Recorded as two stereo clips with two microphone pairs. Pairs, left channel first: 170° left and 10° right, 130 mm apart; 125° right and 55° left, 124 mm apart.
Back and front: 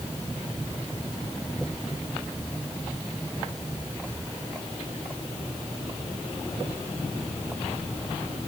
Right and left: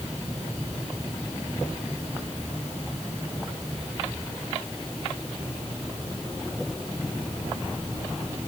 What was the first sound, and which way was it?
Only background noise.